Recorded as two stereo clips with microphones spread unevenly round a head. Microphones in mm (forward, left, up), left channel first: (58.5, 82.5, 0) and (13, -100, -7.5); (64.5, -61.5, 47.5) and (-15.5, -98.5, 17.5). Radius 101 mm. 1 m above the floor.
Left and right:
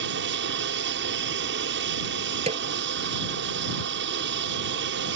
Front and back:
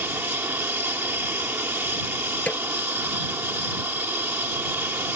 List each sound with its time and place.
0.0 s an aircraft: 95° right
2.5 s a snare drum: 45° right